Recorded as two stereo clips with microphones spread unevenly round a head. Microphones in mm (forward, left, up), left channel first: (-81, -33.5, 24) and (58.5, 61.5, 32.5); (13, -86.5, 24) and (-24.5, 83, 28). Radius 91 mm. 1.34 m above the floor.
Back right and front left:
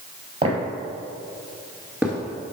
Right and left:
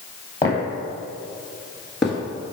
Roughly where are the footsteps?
Ahead.